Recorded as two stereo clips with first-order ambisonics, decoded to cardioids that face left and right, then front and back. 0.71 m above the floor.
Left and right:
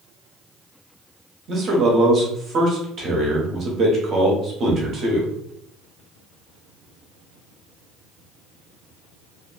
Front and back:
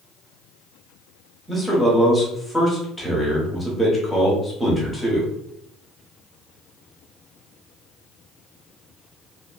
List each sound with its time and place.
1.5 s a man speaking: 90° right, 0.7 m